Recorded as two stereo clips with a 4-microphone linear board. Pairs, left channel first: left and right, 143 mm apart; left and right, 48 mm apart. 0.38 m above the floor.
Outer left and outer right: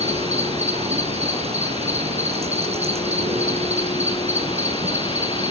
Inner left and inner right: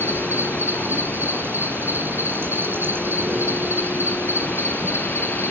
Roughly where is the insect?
Right.